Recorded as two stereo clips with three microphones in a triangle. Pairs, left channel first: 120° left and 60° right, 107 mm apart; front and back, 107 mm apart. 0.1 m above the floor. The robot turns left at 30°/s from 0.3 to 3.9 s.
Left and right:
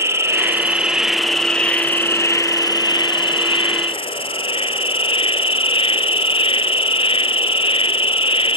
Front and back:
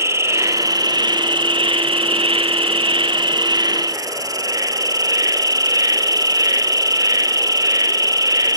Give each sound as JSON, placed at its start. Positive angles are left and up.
{"t": 0.0, "sound": "an insect", "azimuth_deg": -120, "distance_m": 0.8}